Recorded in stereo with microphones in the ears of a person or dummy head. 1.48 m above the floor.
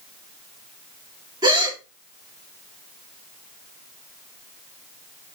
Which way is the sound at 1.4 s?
20° right (ahead or behind).